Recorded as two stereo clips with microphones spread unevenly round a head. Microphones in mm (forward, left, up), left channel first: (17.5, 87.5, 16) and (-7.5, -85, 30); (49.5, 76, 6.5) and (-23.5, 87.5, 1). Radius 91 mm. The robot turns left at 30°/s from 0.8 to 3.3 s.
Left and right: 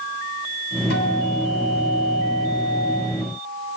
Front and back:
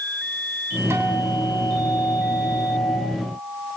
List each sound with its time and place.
0.9 s a guitar: 115° left, 7.5 m; by 3.0 s 55° left, 7.5 m